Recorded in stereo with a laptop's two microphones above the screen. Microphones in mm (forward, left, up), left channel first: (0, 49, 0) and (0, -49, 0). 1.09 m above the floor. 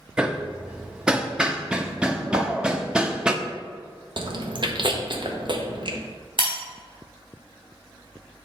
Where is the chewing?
55° right (ahead or behind), 0.8 m.